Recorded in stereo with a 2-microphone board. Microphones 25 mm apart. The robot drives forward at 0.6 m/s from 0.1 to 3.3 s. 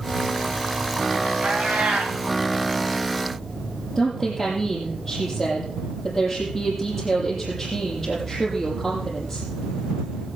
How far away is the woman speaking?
About 6.5 m.